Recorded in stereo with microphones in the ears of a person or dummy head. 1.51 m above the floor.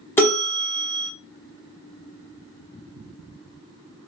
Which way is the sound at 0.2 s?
15° left (ahead or behind).